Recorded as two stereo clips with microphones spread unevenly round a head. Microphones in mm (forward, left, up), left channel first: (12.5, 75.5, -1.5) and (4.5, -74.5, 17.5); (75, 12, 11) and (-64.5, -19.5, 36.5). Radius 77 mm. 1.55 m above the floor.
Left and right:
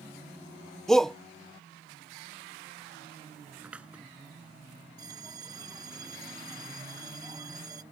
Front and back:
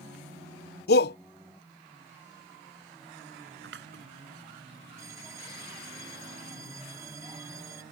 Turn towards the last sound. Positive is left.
turn(degrees=-125)